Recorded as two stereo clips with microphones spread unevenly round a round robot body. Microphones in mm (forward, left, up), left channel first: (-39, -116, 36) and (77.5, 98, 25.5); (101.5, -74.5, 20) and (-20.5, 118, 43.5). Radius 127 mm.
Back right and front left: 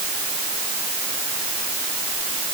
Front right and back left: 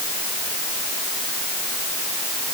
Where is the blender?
I don't hear a blender.